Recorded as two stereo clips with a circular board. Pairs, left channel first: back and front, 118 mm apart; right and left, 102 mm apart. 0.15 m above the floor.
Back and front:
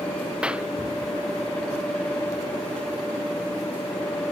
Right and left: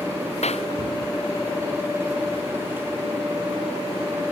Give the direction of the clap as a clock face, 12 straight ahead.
3 o'clock.